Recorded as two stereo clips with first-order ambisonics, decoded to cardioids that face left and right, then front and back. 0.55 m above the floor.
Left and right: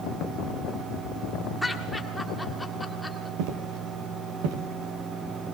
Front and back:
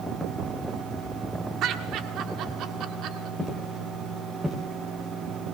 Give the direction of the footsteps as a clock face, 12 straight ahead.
3 o'clock.